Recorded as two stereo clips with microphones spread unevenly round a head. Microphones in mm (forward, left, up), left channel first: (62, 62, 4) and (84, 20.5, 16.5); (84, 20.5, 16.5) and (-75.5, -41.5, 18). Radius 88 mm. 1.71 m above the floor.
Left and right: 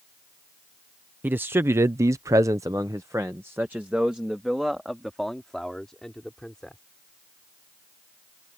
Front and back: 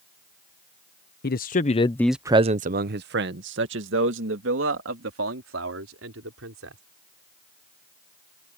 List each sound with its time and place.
1.2 s a man speaking: 15° right; by 6.8 s 155° right